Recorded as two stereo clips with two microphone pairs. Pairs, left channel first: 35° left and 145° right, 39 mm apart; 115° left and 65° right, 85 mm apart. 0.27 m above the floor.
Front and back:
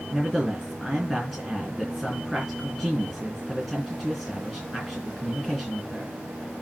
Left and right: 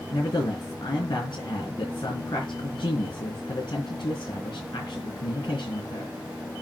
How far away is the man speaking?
About 3.5 m.